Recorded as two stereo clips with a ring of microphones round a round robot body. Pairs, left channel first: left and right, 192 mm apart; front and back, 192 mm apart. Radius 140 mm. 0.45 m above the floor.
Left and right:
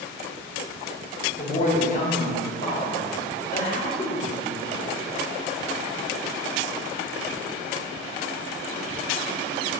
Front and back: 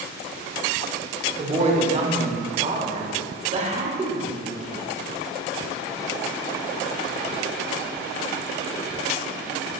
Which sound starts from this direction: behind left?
A woman speaking, at 1.4 s.